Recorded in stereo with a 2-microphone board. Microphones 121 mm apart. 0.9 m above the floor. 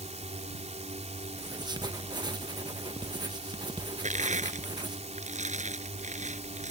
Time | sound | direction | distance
0.0 | a drone | 70° right (ahead or behind) | ?
1.4 | writing | 35° right (ahead or behind) | ?
4.0 | crushing | 85° right | ?